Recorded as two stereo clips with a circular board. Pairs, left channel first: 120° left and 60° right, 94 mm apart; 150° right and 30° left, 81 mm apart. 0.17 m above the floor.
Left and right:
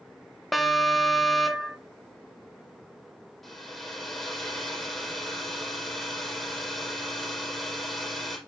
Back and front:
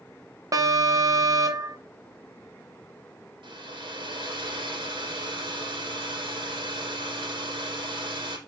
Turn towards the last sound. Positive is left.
turn(degrees=35)